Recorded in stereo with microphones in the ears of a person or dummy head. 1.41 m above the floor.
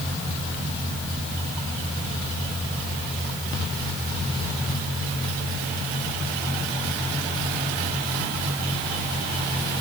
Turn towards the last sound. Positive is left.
No sound to turn to.